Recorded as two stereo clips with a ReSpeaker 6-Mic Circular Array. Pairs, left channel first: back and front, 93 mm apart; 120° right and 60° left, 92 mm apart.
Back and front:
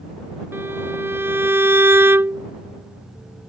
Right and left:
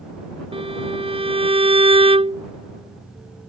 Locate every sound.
0.5 s a violin: 65° left